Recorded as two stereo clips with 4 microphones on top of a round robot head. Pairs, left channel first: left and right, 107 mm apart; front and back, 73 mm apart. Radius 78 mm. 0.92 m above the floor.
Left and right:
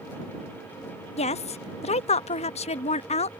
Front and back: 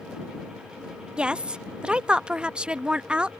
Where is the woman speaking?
105° left.